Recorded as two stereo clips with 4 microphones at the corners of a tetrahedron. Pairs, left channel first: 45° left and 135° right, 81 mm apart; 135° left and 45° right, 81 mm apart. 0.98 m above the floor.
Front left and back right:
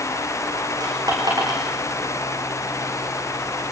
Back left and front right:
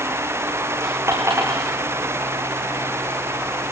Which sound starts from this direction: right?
A dropped coin, at 0.8 s.